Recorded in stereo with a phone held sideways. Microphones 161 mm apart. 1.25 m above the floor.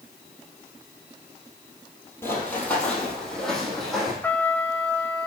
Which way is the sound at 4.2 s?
10° left (ahead or behind).